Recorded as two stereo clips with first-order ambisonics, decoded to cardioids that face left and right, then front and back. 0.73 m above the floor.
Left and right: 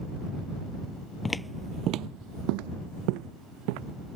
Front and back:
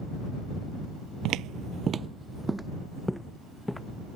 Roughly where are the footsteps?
Behind.